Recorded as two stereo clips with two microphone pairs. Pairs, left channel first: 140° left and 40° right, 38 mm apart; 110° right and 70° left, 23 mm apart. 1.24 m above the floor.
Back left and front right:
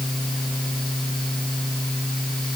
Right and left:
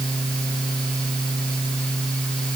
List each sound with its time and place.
Only background noise.